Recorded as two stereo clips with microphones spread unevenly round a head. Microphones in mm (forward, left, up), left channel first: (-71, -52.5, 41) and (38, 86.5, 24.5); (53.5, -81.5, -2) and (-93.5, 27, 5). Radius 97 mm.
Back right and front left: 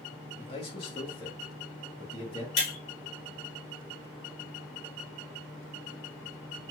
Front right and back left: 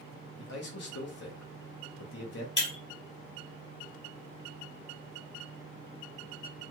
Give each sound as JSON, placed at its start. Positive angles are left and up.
{"t": 0.4, "sound": "a man speaking", "azimuth_deg": -60, "distance_m": 0.9}
{"t": 2.6, "sound": "breaking glass", "azimuth_deg": -95, "distance_m": 2.0}